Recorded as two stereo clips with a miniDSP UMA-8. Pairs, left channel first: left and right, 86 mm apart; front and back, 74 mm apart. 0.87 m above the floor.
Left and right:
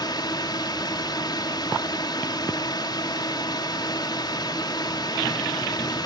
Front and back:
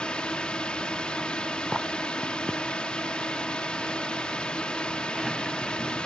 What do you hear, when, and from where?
0.0 s a drone: 75° left